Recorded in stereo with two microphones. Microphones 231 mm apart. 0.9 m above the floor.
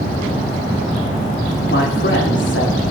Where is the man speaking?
55° left (ahead or behind), 2.5 m.